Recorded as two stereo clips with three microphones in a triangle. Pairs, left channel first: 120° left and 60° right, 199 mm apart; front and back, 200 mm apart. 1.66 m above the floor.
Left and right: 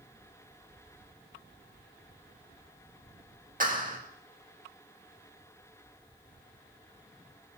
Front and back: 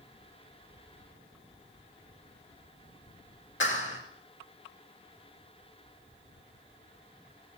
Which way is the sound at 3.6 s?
15° right.